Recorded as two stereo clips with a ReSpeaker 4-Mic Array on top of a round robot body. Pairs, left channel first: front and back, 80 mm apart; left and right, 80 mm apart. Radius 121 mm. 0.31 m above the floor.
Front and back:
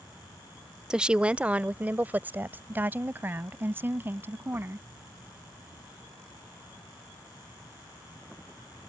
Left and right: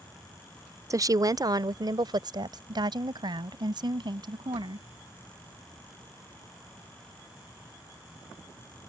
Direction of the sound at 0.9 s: 105° right.